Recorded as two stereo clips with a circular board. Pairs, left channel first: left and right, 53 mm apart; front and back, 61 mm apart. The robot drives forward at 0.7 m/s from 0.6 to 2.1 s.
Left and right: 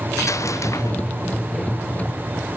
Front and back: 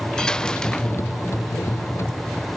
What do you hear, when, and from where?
0.2 s a dropped coin: 80° left